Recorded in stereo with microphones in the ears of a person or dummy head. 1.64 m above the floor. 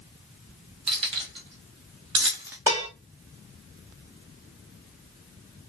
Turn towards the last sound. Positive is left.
turn(degrees=-10)  # may be behind; listen again after turning